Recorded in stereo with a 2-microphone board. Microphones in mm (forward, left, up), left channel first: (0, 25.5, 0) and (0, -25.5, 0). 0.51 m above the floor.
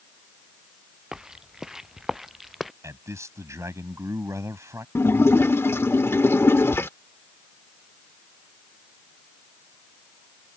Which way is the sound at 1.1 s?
15° right (ahead or behind).